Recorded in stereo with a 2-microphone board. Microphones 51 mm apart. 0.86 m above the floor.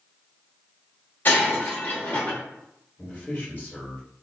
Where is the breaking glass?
40° left (ahead or behind), 1.1 m.